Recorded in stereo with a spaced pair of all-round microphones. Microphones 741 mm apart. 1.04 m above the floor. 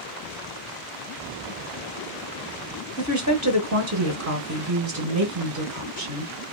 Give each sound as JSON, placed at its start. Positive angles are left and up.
{"t": 3.0, "sound": "a woman speaking", "side_deg": -25, "distance_m": 0.8}